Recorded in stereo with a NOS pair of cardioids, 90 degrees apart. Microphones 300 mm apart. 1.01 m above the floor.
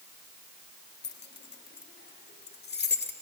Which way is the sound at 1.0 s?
35° left.